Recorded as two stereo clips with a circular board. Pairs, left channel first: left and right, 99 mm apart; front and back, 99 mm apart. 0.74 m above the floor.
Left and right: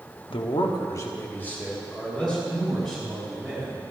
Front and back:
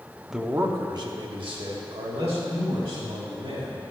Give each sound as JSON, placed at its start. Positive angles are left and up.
{"t": 0.3, "sound": "a man speaking", "azimuth_deg": 95, "distance_m": 1.0}